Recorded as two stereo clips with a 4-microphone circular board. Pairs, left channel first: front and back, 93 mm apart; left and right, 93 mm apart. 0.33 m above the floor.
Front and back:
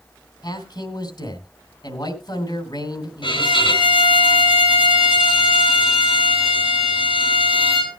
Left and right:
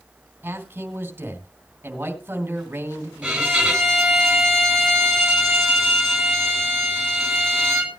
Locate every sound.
0.4 s a man speaking: 25° right, 2.5 m
3.2 s a violin: 5° right, 4 m